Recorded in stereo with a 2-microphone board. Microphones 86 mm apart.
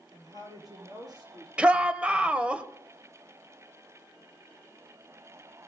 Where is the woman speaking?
45° right (ahead or behind), 7.5 m; by 2.6 s 55° right (ahead or behind), 10.5 m.